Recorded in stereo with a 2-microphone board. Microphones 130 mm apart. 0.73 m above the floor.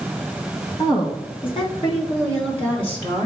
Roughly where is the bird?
I don't hear a bird.